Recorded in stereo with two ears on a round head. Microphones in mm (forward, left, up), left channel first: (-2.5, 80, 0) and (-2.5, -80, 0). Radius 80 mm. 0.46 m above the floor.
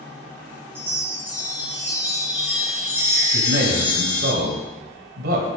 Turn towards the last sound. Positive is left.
turn(degrees=-65)  # may be behind; listen again after turning